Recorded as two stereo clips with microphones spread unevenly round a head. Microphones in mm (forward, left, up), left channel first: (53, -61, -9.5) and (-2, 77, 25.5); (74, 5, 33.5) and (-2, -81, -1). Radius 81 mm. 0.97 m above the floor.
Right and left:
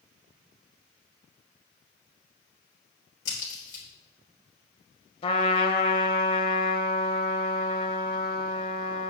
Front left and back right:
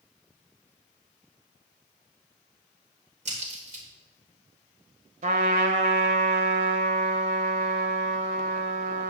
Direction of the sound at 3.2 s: 110° right.